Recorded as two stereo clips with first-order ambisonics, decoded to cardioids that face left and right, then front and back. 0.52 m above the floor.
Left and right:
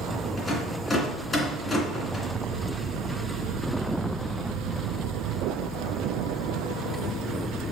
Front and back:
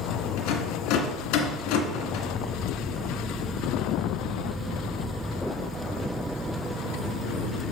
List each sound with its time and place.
0.4 s a rattle: 10° left, 2 m